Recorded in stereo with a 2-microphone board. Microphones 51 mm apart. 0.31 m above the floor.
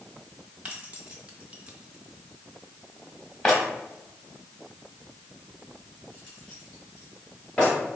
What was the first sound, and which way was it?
Keys jangling, 25° right (ahead or behind).